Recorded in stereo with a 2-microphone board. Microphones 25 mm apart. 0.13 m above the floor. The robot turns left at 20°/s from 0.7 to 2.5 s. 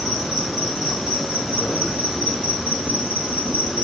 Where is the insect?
15° right, 3 m; by 3.8 s 50° right, 3 m.